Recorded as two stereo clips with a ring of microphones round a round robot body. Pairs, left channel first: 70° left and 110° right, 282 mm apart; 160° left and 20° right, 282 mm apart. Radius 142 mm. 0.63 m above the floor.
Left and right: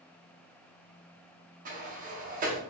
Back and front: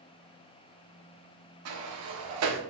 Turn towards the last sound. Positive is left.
turn(degrees=-50)